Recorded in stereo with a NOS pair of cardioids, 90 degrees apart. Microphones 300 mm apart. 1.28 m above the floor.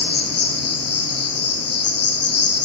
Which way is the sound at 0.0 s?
55° left.